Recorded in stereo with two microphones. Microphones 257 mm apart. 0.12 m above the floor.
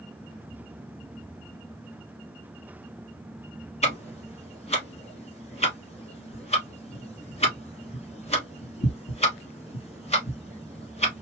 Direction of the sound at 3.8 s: 25° left (ahead or behind).